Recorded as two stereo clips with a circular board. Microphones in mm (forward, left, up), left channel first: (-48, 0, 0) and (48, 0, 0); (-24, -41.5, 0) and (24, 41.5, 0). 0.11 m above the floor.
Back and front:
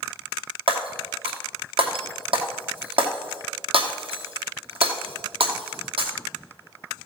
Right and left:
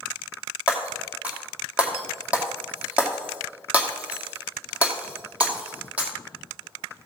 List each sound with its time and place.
0.7 s breaking glass: 15° right, 2 m